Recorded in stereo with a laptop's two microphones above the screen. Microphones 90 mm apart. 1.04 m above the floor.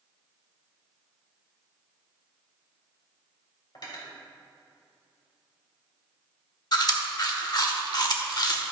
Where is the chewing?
50° left (ahead or behind), 1.2 m.